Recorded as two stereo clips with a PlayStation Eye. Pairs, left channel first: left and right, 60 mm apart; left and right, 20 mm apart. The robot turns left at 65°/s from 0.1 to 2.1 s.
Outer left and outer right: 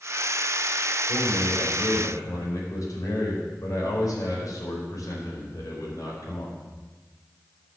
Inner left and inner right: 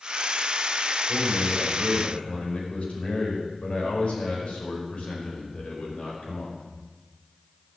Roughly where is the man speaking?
Behind.